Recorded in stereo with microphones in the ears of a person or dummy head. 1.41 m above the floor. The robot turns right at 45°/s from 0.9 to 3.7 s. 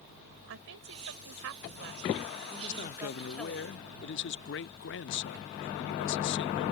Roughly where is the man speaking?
Ahead left.